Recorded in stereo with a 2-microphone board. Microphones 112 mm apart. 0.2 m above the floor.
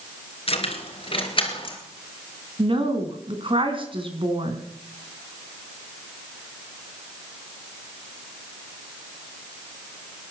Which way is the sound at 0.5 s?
60° left (ahead or behind).